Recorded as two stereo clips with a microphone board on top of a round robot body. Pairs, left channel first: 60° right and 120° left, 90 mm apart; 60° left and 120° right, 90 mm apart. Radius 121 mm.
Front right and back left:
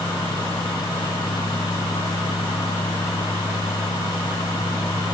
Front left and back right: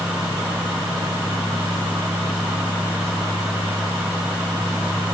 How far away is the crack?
I don't hear a crack.